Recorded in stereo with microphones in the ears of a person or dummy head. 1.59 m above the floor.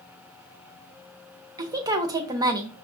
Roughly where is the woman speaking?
Right.